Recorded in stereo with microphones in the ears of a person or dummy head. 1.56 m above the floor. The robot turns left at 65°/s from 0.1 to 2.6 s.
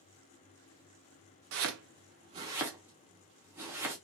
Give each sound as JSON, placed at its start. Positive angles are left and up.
{"t": 1.5, "sound": "chopping", "side_deg": -65, "distance_m": 0.7}